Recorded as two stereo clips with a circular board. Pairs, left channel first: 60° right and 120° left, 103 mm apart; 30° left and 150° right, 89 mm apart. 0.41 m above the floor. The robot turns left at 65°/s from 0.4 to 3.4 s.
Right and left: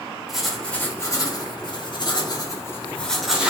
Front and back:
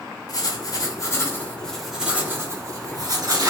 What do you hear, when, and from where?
0.3 s writing: 35° left, 0.7 m; by 3.5 s 160° right, 0.7 m